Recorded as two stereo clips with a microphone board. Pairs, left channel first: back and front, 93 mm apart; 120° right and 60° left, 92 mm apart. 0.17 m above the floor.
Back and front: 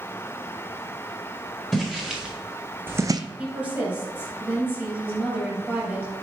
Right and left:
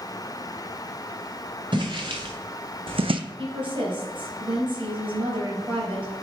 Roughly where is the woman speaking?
Left.